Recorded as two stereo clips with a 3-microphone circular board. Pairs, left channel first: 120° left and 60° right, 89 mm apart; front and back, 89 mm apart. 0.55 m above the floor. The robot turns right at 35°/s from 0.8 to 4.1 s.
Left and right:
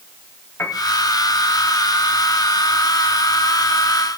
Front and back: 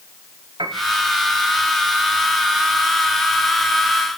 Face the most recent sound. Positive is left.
turn(degrees=-65)